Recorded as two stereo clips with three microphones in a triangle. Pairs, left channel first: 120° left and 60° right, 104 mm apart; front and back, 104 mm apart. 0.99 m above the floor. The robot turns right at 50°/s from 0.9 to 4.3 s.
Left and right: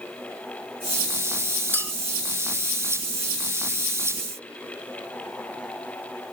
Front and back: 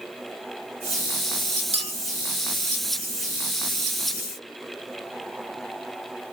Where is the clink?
170° right, 0.7 m; by 1.9 s 160° right, 0.7 m.